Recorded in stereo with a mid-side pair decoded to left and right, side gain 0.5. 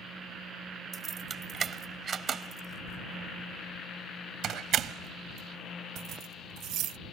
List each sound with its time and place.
0.9 s keys jangling: 40° right; by 7.0 s 75° right